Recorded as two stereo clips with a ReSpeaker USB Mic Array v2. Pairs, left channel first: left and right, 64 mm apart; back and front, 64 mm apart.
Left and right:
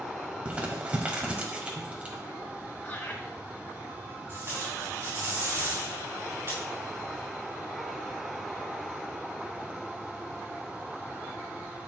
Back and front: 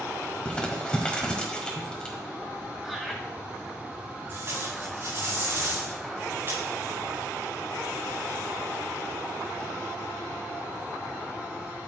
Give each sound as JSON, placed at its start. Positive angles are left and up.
{"t": 0.5, "sound": "crumpling", "azimuth_deg": -130, "distance_m": 1.3}
{"t": 2.8, "sound": "laughter", "azimuth_deg": 85, "distance_m": 1.0}
{"t": 4.3, "sound": "tape being pulled", "azimuth_deg": -40, "distance_m": 4.5}